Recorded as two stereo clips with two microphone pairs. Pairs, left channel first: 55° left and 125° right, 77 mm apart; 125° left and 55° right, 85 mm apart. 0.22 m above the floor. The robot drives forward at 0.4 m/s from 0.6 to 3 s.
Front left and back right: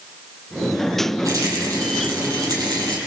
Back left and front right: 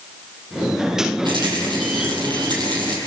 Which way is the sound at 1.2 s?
85° right.